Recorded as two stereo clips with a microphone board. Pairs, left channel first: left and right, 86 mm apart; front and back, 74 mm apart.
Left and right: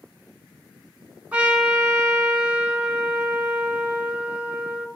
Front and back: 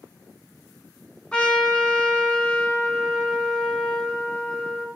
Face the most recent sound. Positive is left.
turn(degrees=-50)